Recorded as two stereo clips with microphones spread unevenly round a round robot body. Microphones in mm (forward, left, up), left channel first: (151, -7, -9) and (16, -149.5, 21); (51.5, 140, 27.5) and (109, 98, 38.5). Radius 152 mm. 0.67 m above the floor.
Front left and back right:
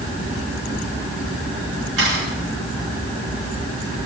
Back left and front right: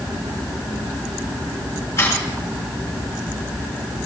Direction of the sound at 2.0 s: 165° right.